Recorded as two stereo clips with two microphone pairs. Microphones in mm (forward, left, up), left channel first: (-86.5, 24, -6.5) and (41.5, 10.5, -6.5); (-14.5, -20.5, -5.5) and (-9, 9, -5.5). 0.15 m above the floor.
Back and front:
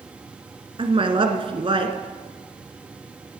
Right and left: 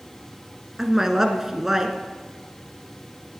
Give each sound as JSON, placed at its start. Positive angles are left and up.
{"t": 0.8, "sound": "a woman speaking", "azimuth_deg": 10, "distance_m": 1.4}